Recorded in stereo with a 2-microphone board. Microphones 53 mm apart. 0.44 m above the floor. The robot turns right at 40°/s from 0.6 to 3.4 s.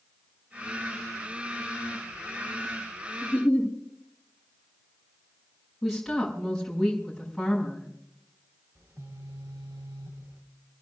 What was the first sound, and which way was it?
A giggle, 15° left (ahead or behind).